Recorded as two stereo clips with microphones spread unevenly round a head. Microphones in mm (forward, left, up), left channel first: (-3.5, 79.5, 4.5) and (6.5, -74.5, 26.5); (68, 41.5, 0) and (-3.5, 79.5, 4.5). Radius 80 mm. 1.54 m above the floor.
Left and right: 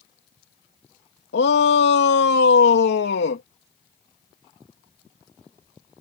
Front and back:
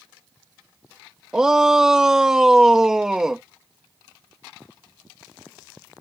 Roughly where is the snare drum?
I don't hear a snare drum.